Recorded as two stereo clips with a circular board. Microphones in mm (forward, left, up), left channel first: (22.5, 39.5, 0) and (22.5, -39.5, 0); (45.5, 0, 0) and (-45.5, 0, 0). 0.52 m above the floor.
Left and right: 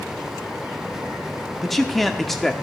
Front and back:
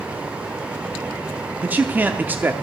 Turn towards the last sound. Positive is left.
turn(degrees=175)